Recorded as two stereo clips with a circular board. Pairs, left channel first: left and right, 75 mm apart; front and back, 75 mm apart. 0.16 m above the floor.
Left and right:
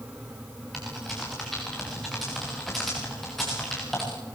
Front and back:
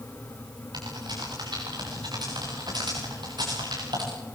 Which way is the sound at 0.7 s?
175° left.